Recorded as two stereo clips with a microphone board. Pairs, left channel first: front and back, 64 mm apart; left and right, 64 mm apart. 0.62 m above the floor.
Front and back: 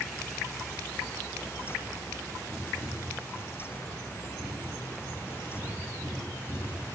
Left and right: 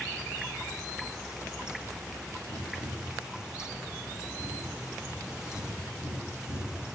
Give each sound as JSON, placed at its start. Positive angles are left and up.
{"t": 2.5, "sound": "tapping", "azimuth_deg": 80, "distance_m": 6.5}